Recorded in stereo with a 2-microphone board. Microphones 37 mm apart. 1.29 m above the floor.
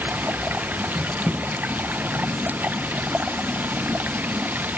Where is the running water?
50° right (ahead or behind), 1.0 m.